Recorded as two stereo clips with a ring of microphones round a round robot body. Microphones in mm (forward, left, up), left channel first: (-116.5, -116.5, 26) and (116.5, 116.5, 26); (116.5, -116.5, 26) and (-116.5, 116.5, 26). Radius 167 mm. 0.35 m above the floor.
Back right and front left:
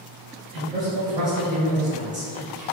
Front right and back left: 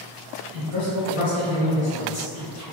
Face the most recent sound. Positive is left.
turn(degrees=-20)